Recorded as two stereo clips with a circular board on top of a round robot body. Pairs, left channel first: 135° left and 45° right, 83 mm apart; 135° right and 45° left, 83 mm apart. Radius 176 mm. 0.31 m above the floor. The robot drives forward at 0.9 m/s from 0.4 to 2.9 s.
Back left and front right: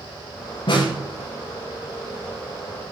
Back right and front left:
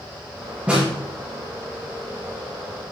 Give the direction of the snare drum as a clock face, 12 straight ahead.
8 o'clock.